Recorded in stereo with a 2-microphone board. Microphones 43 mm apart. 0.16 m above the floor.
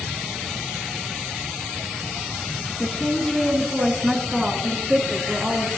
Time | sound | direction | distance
2.8 | a woman speaking | 25° left (ahead or behind) | 1.5 m